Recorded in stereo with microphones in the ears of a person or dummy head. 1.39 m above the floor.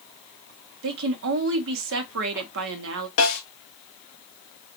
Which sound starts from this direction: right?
A woman speaking, at 0.8 s.